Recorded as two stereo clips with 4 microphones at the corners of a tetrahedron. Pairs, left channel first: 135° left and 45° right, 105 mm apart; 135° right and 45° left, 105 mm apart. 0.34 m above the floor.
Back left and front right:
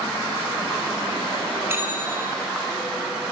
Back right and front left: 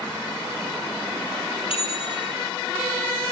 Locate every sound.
1.7 s a bell: 110° right, 3.5 m